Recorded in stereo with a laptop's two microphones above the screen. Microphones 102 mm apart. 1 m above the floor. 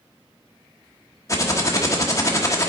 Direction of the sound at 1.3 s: 30° left (ahead or behind).